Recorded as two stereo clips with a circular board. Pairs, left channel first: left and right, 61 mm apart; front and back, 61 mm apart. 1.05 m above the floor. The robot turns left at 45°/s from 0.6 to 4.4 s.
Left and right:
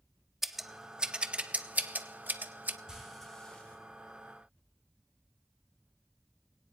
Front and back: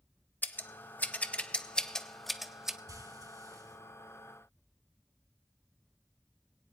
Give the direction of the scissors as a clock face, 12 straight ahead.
12 o'clock.